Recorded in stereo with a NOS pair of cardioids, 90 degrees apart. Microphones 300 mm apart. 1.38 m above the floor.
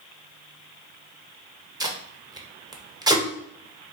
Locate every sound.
1.8 s tape being pulled: 15° right, 0.7 m